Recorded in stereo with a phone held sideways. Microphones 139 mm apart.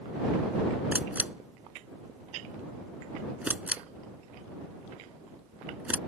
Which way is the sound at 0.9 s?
10° right (ahead or behind).